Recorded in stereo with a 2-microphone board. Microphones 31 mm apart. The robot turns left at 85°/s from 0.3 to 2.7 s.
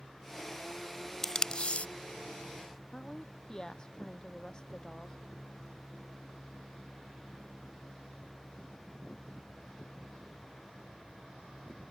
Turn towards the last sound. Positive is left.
turn(degrees=25)  # may be behind; listen again after turning